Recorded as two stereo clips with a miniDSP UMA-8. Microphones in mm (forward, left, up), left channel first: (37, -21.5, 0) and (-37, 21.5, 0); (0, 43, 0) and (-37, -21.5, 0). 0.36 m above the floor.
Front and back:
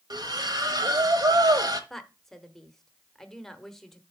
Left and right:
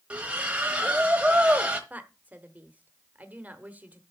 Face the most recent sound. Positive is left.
turn(degrees=-110)